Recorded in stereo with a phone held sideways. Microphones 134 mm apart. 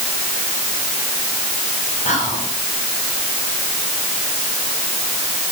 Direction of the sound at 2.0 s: 60° left (ahead or behind).